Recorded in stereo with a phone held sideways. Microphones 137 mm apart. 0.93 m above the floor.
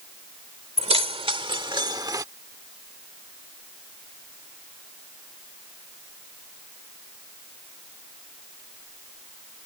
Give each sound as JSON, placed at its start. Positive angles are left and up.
{"t": 0.8, "sound": "keys jangling", "side_deg": -50}